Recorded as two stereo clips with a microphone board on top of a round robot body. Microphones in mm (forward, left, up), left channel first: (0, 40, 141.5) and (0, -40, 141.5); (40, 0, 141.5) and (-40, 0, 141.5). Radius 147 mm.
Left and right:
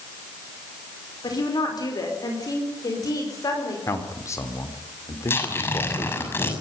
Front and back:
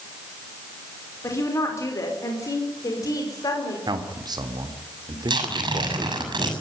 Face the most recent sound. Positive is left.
turn(degrees=150)